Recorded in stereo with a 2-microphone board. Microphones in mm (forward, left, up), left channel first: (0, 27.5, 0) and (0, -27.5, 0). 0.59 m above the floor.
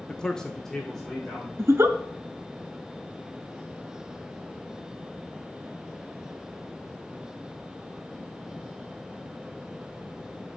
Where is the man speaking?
10° left (ahead or behind), 0.6 m; by 1.5 s 5° left (ahead or behind), 2 m.